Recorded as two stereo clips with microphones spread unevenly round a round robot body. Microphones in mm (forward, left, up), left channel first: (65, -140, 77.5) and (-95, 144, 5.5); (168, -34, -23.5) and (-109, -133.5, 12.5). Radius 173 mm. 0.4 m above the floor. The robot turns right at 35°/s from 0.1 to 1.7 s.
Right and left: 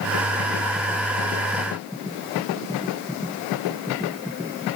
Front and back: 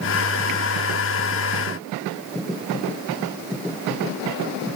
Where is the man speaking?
No man speaking in this recording.